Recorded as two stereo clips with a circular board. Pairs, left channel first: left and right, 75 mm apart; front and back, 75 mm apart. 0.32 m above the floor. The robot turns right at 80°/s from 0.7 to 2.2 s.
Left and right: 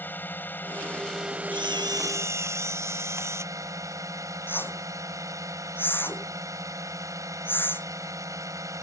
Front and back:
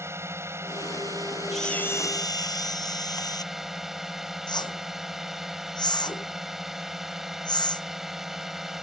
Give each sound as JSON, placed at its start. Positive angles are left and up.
{"t": 0.0, "sound": "a drone", "azimuth_deg": 145}
{"t": 1.5, "sound": "a camera shutter", "azimuth_deg": -90}
{"t": 4.5, "sound": "a whoosh", "azimuth_deg": 25}